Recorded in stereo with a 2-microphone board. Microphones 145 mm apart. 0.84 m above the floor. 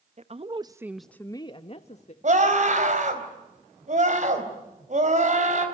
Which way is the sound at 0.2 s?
50° right (ahead or behind).